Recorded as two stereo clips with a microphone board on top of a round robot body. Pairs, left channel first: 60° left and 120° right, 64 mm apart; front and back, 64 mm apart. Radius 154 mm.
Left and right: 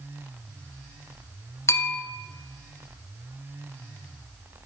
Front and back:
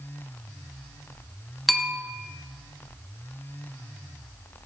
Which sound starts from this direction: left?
A bell, at 1.7 s.